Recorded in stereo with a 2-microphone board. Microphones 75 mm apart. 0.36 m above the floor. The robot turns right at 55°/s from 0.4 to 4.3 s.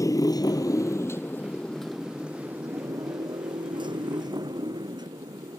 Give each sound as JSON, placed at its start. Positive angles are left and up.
{"t": 0.0, "sound": "a motorcycle", "side_deg": 45}